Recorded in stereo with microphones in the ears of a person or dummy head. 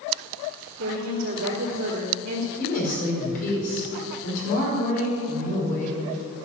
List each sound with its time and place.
0.8 s a woman speaking: 65° right (ahead or behind), 3 m
2.6 s a woman speaking: 45° left (ahead or behind), 5 m